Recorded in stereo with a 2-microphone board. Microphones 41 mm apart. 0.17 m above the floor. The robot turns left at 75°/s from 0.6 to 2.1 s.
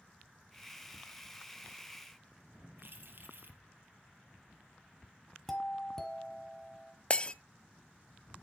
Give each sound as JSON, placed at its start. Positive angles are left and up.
{"t": 2.8, "sound": "keys jangling", "side_deg": -60, "distance_m": 2.0}
{"t": 5.5, "sound": "a doorbell", "side_deg": 5, "distance_m": 1.8}
{"t": 7.1, "sound": "breaking glass", "side_deg": 25, "distance_m": 0.5}